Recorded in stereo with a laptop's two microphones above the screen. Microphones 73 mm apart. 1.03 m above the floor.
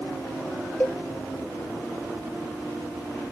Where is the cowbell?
20° left (ahead or behind), 0.5 m.